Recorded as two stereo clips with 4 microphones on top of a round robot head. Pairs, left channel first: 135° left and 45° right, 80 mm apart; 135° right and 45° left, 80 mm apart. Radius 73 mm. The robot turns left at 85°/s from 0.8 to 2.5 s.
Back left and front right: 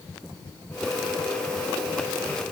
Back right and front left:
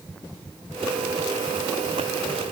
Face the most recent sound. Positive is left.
No sound to turn to.